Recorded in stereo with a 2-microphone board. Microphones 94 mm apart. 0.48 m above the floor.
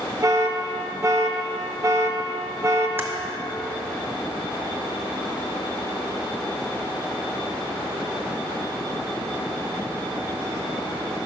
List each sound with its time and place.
0.2 s an alarm: 35° right (ahead or behind), 0.5 m
3.0 s typing on a keyboard: 25° right (ahead or behind), 0.7 m